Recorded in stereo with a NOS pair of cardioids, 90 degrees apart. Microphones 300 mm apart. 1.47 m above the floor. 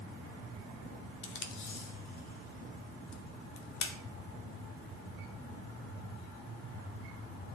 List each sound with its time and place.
1.2 s tape being pulled: 65° left, 1.5 m